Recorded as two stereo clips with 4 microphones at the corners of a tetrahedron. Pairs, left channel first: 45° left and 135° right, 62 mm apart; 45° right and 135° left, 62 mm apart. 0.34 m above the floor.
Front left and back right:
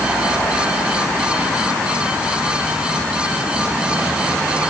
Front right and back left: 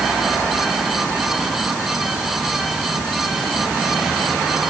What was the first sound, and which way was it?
Only background noise.